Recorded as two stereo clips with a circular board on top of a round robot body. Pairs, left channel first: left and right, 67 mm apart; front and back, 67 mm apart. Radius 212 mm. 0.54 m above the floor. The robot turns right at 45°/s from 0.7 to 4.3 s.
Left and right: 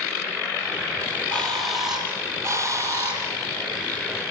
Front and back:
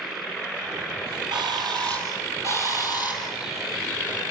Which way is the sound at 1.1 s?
155° left.